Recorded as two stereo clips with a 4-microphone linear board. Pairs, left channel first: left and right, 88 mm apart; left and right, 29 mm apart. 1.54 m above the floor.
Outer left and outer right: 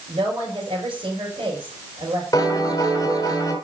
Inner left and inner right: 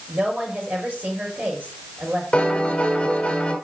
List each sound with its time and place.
0.1 s a woman speaking: 85° right, 5 m
2.3 s a piano: 40° left (ahead or behind), 2.5 m